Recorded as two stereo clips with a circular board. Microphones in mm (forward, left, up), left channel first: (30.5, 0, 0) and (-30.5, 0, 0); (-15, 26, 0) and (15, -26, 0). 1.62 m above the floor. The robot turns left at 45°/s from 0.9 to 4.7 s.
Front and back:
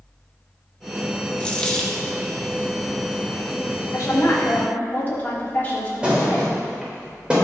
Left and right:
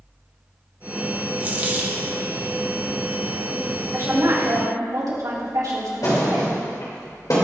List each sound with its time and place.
1.4 s a dropped coin: 45° right, 1.0 m; by 2.0 s 75° right, 1.0 m
3.9 s a woman speaking: 25° right, 3 m; by 6.5 s 60° right, 3 m
6.0 s a thud: 105° left, 3.5 m